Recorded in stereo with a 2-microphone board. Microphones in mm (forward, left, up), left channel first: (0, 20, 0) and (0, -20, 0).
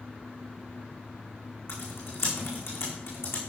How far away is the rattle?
No rattle in this recording.